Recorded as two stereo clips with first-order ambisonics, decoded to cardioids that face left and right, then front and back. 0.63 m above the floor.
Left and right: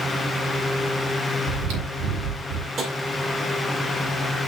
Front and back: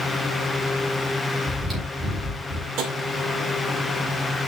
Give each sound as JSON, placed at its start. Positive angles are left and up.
{"t": 1.5, "sound": "chewing", "azimuth_deg": -100, "distance_m": 4.5}
{"t": 2.8, "sound": "tapping", "azimuth_deg": -150, "distance_m": 2.0}